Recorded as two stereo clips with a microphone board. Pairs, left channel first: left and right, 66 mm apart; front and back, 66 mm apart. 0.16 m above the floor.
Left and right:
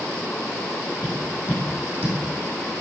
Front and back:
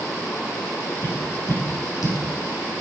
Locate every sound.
1.0 s tapping: 25° right, 7.5 m